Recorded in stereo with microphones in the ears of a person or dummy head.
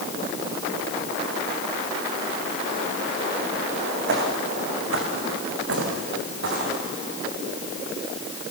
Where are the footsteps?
70° right (ahead or behind), 4 m; by 6.8 s 60° right (ahead or behind), 6 m.